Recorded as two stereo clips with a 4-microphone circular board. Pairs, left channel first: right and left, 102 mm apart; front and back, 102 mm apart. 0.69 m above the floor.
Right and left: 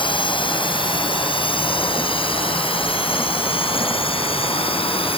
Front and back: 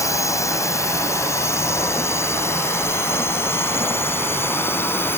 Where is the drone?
60° right; by 5.2 s 65° right.